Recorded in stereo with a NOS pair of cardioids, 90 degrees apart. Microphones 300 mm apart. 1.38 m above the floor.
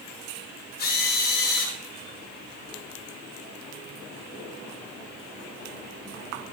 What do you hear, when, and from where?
0.8 s a drill: 30° left, 3 m